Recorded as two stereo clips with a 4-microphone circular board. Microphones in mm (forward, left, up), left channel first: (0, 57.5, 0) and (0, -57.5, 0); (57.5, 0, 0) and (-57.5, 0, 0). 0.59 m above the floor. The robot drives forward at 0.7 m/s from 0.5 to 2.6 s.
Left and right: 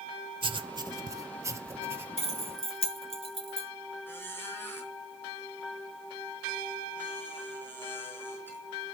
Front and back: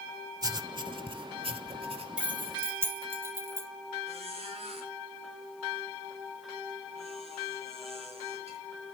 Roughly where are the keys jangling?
Left.